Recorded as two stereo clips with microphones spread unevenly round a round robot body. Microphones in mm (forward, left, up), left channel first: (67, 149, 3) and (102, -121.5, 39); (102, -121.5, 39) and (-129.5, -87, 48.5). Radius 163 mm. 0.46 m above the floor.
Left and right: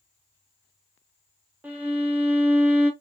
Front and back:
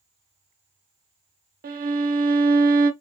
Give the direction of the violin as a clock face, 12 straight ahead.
6 o'clock.